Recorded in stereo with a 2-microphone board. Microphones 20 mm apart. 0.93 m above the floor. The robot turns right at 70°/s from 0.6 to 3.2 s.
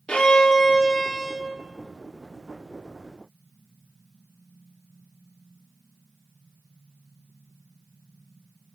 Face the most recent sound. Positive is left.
turn(degrees=-70)